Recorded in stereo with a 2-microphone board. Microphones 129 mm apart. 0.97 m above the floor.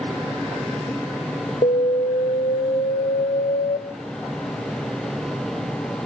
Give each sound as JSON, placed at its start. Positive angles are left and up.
{"t": 1.6, "sound": "an alarm", "side_deg": 60, "distance_m": 0.9}